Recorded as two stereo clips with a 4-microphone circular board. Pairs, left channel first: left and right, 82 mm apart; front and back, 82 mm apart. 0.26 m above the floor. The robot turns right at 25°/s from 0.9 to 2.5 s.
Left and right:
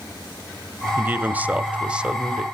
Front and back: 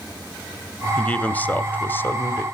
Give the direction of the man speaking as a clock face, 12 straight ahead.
2 o'clock.